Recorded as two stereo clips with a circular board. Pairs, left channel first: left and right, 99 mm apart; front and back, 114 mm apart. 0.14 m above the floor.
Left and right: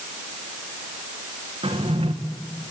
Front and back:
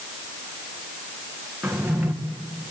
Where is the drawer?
100° right, 2.5 m.